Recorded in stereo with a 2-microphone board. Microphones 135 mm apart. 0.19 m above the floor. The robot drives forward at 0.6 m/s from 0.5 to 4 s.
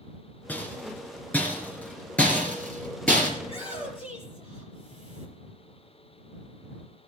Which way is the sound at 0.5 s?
10° left (ahead or behind).